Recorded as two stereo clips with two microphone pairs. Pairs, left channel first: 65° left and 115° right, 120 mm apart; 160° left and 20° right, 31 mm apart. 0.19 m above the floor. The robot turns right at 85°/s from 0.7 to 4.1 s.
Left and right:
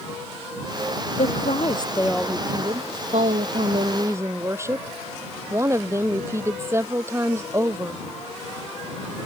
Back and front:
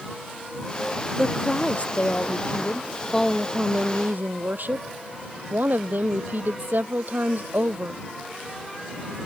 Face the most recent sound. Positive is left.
turn(degrees=-45)